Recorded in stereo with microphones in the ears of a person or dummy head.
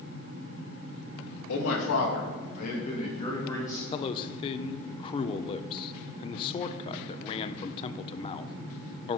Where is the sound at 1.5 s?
70° left (ahead or behind), 2 m; by 3.8 s 15° left (ahead or behind), 3 m.